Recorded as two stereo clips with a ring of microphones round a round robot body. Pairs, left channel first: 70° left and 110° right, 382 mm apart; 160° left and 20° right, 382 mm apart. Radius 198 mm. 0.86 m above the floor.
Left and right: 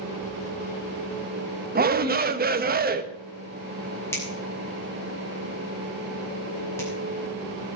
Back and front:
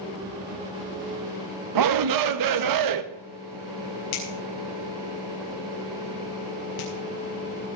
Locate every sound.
1.8 s a shout: 50° right, 1.2 m
4.1 s a finger snap: 150° left, 6.5 m